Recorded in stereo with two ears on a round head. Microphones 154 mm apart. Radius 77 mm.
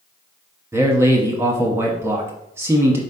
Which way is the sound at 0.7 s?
15° right (ahead or behind).